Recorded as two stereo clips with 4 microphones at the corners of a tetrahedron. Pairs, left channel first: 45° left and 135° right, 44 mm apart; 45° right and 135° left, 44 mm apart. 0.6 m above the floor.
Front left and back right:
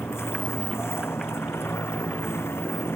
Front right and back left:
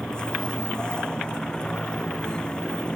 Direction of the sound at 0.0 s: 25° left.